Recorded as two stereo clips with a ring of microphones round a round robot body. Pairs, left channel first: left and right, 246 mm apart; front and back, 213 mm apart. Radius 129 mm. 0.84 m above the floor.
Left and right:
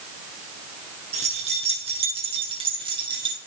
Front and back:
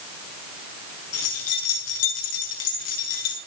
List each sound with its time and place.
1.1 s keys jangling: 25° right, 8 m; by 3.4 s 15° right, 9 m